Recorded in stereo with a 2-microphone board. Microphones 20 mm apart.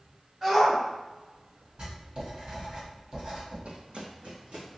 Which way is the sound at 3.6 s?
65° right (ahead or behind).